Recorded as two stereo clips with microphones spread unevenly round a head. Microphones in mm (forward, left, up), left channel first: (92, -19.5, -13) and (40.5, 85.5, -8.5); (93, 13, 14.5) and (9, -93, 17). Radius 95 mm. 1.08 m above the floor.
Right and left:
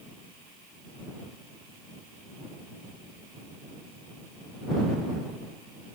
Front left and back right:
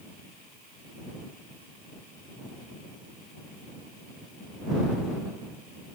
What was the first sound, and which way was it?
Only background noise.